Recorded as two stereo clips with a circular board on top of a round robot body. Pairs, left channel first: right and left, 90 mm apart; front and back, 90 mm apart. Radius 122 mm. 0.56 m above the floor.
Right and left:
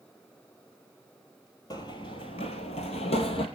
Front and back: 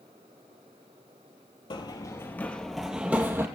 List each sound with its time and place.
1.7 s running footsteps: 40° right, 1.0 m; by 3.5 s 115° right, 1.2 m